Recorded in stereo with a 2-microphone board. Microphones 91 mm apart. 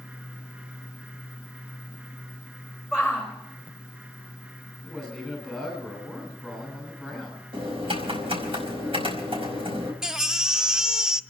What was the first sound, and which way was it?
A shout, 15° right (ahead or behind).